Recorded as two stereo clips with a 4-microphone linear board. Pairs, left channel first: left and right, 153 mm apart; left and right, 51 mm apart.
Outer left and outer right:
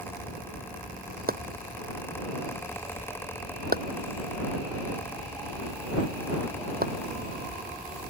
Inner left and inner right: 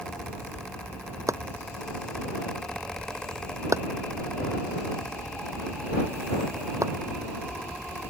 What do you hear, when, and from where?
1.3 s chopping: 80° right